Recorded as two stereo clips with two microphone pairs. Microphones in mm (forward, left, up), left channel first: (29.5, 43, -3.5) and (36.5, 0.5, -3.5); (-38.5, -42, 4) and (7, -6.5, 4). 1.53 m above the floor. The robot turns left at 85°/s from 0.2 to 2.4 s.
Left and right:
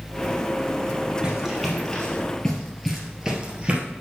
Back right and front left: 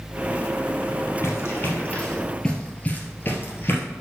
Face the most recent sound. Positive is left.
turn(degrees=-125)